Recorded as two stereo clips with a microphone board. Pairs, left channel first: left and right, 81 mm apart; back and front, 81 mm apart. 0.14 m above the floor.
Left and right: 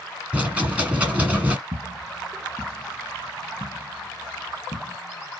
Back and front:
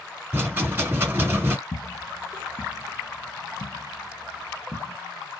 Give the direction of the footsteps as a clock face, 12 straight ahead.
4 o'clock.